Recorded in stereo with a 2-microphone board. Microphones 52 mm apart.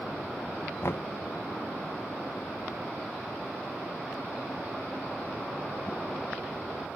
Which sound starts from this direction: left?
Knocking, at 0.8 s.